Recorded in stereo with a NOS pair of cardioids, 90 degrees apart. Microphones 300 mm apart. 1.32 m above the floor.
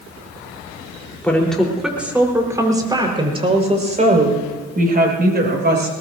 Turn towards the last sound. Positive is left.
turn(degrees=-35)